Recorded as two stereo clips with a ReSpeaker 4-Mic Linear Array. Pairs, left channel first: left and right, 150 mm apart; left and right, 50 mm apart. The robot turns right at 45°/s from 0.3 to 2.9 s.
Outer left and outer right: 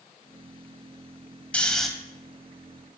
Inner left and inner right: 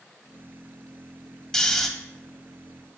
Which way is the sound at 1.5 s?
10° left (ahead or behind).